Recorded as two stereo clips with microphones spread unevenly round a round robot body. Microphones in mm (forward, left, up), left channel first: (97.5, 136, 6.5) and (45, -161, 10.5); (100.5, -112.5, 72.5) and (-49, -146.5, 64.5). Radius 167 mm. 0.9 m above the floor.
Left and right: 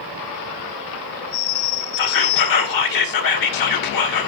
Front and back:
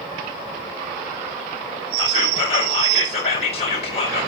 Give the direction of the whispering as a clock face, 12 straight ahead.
10 o'clock.